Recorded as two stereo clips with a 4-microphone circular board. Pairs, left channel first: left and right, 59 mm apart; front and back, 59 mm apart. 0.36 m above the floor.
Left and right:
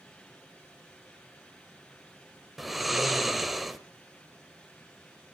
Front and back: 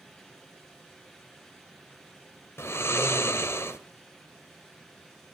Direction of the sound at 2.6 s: Straight ahead.